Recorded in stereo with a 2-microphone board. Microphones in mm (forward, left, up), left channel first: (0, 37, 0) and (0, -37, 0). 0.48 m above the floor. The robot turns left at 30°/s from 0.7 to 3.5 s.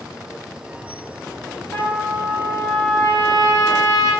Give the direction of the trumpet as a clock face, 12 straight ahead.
2 o'clock.